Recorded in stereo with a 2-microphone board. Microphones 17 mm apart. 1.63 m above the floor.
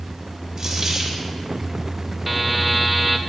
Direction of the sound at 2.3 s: 15° right (ahead or behind).